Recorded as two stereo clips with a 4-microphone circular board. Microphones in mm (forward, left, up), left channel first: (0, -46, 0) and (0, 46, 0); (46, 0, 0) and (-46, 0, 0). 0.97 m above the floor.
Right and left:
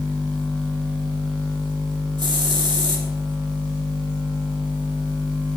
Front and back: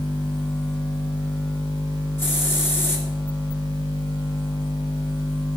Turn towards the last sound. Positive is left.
turn(degrees=65)